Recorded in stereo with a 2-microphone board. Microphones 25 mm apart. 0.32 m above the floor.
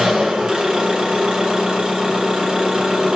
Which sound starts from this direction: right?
An engine running, at 0.0 s.